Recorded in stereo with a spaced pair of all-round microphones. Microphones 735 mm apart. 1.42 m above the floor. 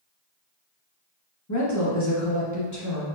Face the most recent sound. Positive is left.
turn(degrees=25)  # may be behind; listen again after turning